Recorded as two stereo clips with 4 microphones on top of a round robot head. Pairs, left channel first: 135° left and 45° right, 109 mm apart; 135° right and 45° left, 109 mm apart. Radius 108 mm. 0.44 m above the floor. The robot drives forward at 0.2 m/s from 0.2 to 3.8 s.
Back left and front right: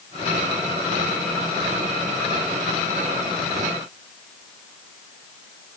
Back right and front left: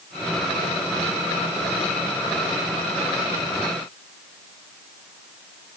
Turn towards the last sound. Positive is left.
No sound to turn to.